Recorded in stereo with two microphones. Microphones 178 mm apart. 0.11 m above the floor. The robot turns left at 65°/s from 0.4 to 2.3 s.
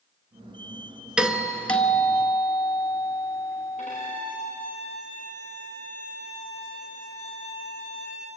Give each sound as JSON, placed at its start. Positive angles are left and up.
{"t": 1.2, "sound": "a doorbell", "side_deg": -5, "distance_m": 1.8}
{"t": 3.8, "sound": "a violin", "side_deg": 45, "distance_m": 8.5}